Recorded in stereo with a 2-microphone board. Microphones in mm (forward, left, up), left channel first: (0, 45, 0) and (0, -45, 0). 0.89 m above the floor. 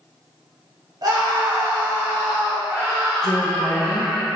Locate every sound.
1.0 s a scream: 45° right (ahead or behind), 1.3 m; by 4.2 s 5° right (ahead or behind), 3.5 m
3.2 s a woman speaking: 40° left (ahead or behind), 1.0 m